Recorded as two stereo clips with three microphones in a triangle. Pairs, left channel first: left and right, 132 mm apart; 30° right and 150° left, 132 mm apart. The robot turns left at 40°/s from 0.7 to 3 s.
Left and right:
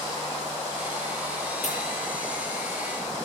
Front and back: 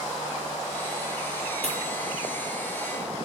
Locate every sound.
1.6 s a pop: 115° left, 6 m; by 1.8 s 110° left, 6 m